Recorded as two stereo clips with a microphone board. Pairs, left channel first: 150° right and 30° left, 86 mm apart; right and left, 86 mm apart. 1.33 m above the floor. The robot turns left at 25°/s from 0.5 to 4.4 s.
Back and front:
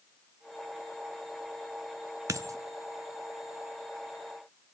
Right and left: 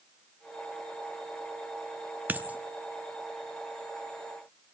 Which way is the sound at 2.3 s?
35° left.